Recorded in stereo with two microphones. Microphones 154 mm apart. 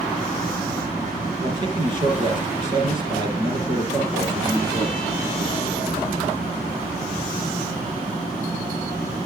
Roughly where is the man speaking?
Right.